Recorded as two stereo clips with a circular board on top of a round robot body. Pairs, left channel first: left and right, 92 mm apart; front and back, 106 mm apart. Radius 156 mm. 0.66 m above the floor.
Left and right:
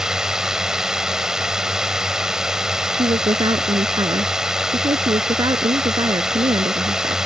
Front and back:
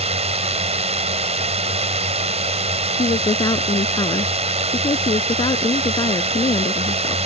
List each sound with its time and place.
0.0 s a drone: 175° right
2.9 s a woman speaking: 50° right